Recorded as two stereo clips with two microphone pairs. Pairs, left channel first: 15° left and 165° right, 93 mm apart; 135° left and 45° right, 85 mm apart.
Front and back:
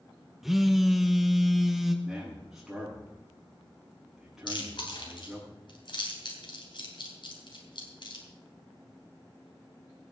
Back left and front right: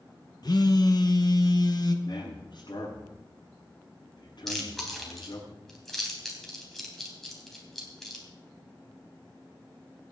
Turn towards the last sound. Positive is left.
turn(degrees=45)